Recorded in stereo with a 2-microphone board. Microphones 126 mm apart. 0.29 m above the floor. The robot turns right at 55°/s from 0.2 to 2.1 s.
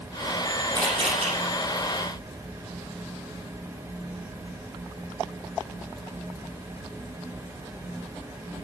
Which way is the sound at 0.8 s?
30° right (ahead or behind).